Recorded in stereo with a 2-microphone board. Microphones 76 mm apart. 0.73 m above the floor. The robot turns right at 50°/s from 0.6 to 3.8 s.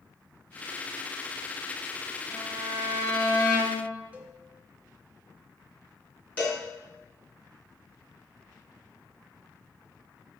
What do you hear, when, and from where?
2.3 s a violin: 15° right, 4 m; by 3.9 s 60° left, 4 m
4.1 s a cowbell: 20° right (ahead or behind), 1.0 m
6.4 s a cowbell: 20° left (ahead or behind), 2.5 m